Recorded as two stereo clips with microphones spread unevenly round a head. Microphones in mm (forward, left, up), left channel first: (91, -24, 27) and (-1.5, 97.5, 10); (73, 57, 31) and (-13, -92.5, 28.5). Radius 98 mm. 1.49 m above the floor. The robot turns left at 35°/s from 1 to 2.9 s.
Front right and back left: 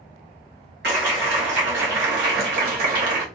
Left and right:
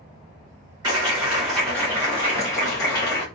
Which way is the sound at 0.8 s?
170° left.